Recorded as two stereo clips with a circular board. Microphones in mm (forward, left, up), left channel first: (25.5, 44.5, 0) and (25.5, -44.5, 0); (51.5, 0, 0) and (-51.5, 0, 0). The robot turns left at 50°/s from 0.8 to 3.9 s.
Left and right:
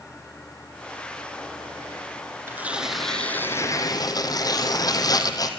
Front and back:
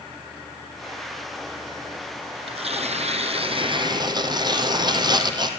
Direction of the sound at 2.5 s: 155° right.